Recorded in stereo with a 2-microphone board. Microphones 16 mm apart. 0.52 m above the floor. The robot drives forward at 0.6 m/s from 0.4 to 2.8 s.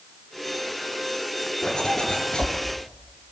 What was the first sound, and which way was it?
A zipper, 70° left (ahead or behind).